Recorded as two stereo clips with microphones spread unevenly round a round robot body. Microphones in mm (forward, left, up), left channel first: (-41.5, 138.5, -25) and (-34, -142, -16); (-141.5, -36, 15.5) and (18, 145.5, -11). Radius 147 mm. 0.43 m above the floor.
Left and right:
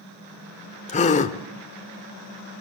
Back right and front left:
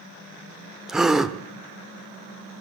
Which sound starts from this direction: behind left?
A gasp, at 0.9 s.